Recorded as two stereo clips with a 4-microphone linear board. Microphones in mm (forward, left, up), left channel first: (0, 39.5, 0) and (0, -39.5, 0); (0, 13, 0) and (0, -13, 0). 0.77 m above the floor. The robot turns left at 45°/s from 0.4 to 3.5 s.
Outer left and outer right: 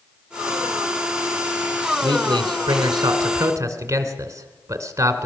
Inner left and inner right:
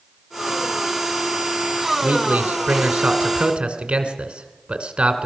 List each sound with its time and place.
2.0 s a man speaking: 70° right (ahead or behind), 2.5 m; by 5.3 s 40° right (ahead or behind), 2.5 m